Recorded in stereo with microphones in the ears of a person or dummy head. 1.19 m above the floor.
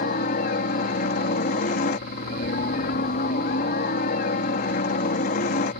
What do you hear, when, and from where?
0.0 s a helicopter: 45° left (ahead or behind)